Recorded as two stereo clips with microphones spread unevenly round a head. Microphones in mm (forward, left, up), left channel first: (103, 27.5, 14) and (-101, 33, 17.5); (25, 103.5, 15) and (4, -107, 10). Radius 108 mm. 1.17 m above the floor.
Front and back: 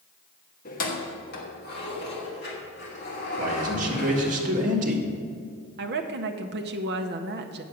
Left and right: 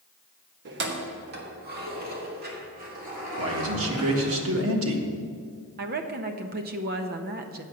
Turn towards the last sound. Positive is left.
turn(degrees=-140)